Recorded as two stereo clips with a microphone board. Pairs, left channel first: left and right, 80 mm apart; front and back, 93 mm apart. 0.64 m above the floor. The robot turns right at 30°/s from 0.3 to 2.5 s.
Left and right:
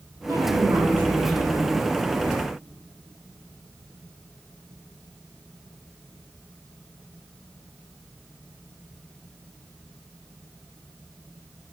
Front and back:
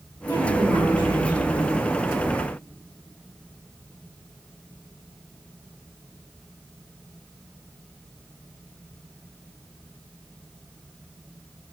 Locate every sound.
0.3 s a woman speaking: 50° right, 4.5 m; by 1.8 s 5° right, 4.5 m